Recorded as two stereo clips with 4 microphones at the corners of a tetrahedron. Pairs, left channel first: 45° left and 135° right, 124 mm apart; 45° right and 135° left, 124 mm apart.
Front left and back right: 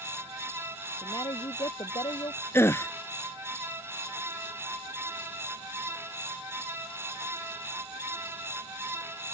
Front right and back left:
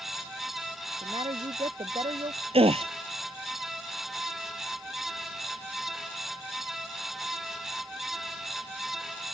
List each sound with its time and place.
1.0 s a woman speaking: 95° left
2.5 s a gasp: 110° left